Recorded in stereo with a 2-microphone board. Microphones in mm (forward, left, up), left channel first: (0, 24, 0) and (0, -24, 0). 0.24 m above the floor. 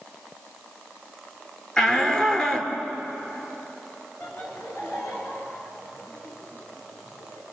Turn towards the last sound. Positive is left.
turn(degrees=70)  # may be behind; listen again after turning